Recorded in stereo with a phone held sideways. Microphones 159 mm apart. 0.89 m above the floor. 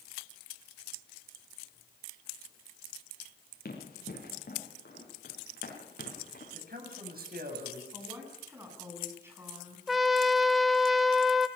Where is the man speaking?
75° right (ahead or behind), 7 m.